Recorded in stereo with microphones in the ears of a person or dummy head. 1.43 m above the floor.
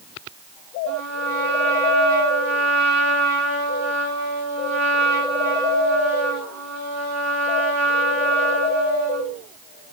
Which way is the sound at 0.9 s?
70° right (ahead or behind).